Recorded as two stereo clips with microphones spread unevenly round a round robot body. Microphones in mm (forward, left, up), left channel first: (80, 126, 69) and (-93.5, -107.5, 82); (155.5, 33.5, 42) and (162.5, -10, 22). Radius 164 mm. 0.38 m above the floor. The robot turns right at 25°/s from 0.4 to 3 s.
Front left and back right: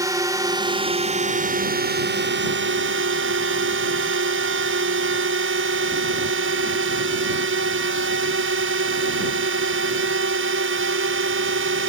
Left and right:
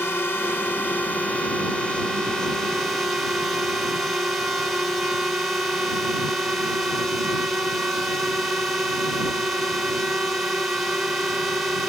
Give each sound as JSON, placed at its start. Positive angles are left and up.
{"t": 0.0, "sound": "a drone", "azimuth_deg": 160}